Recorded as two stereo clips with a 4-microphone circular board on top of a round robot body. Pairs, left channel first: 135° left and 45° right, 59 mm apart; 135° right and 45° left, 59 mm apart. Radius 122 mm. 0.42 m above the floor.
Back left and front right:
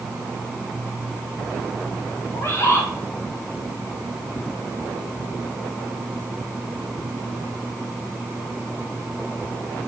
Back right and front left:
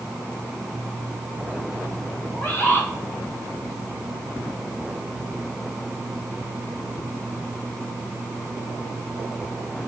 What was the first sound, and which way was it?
A bird, 175° left.